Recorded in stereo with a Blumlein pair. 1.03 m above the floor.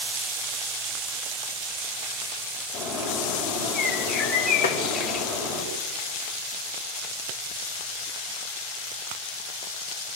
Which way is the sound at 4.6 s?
60° left.